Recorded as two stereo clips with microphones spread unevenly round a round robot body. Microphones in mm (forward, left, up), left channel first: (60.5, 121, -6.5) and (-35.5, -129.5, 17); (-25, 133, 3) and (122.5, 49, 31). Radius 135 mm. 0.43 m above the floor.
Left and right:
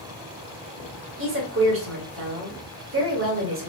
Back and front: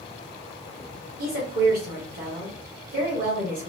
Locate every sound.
1.2 s a woman speaking: 70° right, 1.2 m